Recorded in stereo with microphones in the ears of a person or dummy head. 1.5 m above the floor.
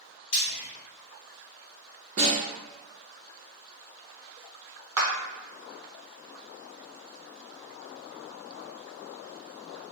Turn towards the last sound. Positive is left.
turn(degrees=-15)  # may be behind; listen again after turning